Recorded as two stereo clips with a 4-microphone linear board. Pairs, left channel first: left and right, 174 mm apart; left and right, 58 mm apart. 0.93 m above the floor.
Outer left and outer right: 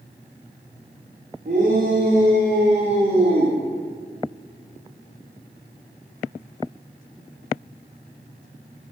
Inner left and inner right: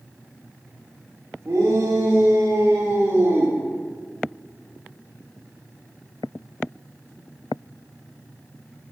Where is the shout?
70° right (ahead or behind), 3 m.